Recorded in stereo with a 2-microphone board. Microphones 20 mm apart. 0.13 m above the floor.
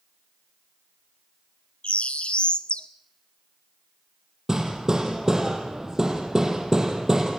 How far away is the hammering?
About 4 m.